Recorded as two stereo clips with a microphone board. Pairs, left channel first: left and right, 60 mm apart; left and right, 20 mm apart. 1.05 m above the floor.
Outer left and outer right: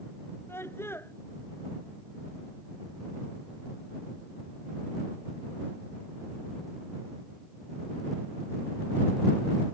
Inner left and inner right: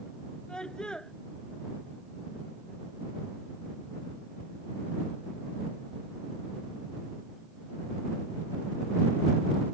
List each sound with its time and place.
0.5 s a scream: 45° left (ahead or behind)